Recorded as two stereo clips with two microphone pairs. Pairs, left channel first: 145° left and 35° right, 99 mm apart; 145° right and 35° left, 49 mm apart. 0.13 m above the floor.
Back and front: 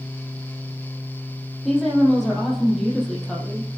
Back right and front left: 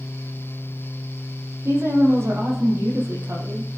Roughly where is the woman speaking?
Ahead left.